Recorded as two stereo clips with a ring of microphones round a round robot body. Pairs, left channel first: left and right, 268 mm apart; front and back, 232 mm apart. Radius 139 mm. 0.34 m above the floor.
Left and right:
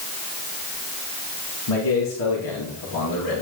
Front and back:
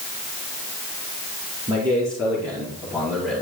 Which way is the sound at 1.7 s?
105° left.